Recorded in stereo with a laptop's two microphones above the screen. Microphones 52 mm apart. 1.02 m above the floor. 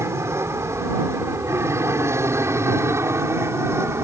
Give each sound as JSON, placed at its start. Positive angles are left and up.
{"t": 0.0, "sound": "an aircraft", "side_deg": -65}